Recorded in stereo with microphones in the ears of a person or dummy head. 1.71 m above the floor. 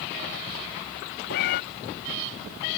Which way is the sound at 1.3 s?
55° left (ahead or behind).